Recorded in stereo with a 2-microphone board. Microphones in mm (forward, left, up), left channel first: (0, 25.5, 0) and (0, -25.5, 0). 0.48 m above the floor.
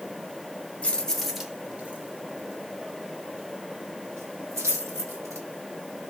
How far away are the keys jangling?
About 0.9 m.